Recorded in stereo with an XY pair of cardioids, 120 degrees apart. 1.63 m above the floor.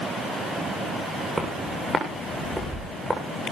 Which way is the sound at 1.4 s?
15° right.